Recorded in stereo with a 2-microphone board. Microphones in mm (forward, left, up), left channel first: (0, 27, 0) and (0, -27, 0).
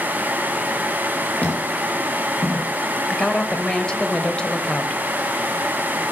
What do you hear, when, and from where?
1.4 s footsteps: 30° left (ahead or behind), 5.5 m; by 2.7 s 20° left (ahead or behind), 5 m
3.1 s a woman speaking: 15° left (ahead or behind), 0.9 m